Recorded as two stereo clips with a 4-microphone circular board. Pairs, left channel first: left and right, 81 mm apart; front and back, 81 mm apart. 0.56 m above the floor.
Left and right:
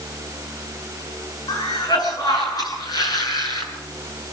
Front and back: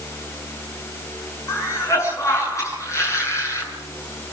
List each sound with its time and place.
1.5 s a cough: 55° left, 8 m